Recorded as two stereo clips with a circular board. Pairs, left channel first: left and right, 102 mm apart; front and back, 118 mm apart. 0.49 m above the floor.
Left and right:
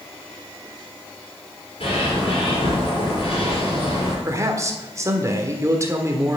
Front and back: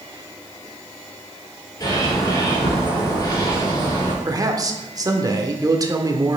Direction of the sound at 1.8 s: 55° left.